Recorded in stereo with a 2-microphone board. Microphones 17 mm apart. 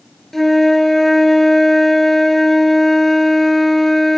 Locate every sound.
0.3 s a flute: 15° left (ahead or behind), 1.7 m